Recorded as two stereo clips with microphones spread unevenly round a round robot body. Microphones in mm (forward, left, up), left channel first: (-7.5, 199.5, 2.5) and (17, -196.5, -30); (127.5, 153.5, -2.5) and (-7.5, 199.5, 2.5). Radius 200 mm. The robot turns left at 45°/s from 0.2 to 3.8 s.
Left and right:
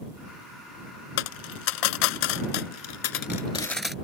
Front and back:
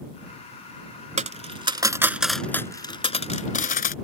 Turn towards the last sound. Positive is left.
turn(degrees=5)